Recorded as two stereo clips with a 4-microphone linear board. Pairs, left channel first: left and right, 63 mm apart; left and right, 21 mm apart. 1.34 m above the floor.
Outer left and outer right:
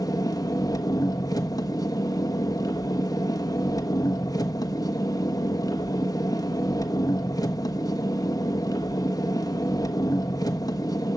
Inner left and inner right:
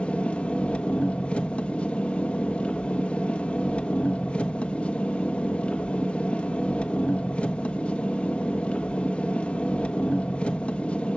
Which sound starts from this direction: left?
An engine running, at 0.0 s.